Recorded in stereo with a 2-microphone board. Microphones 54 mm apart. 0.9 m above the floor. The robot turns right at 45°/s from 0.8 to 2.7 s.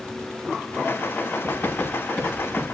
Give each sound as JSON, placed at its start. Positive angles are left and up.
{"t": 1.4, "sound": "writing", "side_deg": 40, "distance_m": 6.5}